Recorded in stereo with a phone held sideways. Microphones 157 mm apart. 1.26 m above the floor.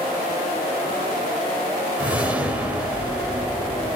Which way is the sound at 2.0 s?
10° right (ahead or behind).